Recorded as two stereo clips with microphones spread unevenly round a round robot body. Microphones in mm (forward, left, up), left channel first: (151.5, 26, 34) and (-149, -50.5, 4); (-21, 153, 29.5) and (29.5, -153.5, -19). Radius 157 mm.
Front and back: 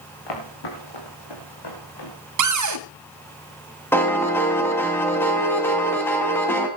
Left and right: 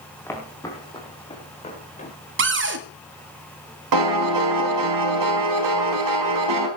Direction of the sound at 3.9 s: 70° right.